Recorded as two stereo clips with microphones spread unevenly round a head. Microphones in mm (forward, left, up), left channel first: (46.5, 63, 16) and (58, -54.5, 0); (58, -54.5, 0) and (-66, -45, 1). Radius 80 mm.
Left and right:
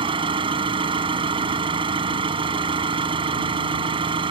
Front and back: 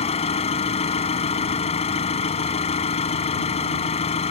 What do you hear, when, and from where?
0.0 s an engine running: 40° right